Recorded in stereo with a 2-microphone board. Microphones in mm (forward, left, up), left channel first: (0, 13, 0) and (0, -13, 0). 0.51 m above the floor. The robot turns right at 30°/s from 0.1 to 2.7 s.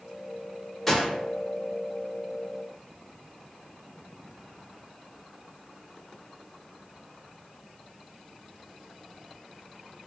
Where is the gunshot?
5° left (ahead or behind), 0.8 m; by 1.1 s 10° left (ahead or behind), 0.8 m.